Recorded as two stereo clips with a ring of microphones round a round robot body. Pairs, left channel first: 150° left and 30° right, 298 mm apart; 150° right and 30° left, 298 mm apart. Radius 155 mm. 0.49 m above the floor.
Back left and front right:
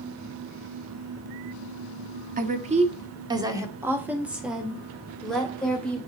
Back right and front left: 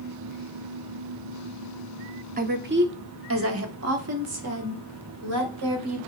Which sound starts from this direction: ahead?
A woman speaking, at 2.4 s.